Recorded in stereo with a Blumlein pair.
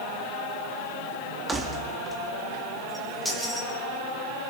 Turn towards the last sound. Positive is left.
turn(degrees=0)